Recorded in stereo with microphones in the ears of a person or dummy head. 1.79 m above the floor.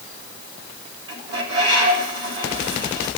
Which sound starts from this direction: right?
A bird, at 1.1 s.